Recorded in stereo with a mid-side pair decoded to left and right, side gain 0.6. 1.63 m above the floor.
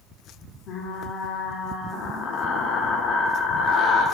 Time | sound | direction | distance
0.7 | frying | 50° left | 0.6 m